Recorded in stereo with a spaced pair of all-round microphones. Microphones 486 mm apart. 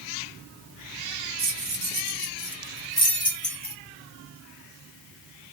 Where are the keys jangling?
60° right (ahead or behind), 0.8 m; by 3.8 s 30° left (ahead or behind), 1.1 m.